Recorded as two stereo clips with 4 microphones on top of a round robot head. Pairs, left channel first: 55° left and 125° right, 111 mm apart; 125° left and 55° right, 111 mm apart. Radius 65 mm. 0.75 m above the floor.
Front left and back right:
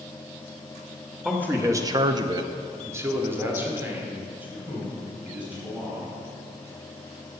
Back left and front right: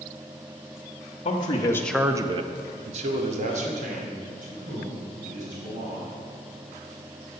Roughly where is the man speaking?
Behind left.